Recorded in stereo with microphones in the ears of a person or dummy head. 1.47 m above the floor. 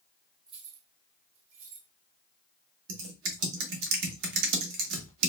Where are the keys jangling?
15° right (ahead or behind), 0.5 m; by 1.9 s 75° right (ahead or behind), 2 m.